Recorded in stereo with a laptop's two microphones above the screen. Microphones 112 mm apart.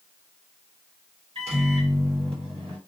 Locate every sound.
1.4 s a microwave: 70° right (ahead or behind), 1.5 m